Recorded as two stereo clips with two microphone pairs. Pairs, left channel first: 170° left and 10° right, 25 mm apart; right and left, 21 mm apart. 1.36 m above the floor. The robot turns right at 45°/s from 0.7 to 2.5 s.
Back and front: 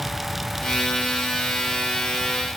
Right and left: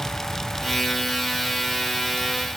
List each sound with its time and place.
Only background noise.